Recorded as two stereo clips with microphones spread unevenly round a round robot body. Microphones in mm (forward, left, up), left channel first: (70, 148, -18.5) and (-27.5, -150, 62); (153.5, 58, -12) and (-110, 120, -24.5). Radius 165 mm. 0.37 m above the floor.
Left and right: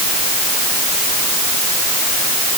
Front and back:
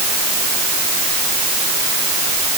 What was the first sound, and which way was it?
Only background noise.